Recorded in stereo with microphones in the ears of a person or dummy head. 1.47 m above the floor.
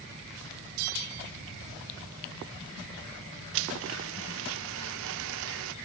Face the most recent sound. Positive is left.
turn(degrees=-65)  # may be behind; listen again after turning